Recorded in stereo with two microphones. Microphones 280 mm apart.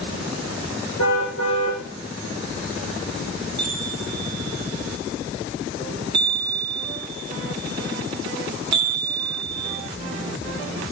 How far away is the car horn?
About 8.5 m.